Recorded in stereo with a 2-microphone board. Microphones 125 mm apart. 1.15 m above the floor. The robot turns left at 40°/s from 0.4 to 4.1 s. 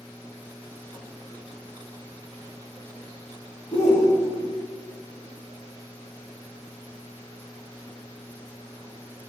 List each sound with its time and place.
3.7 s a shout: 30° left (ahead or behind), 1.3 m; by 4.6 s 10° left (ahead or behind), 1.3 m